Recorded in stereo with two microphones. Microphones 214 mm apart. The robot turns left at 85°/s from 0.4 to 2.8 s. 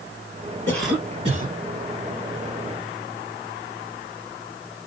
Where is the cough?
15° left, 2.5 m; by 1.5 s 60° right, 2.5 m.